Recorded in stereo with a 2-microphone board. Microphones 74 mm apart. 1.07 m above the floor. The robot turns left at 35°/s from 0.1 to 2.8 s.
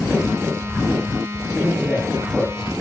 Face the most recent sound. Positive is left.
turn(degrees=-15)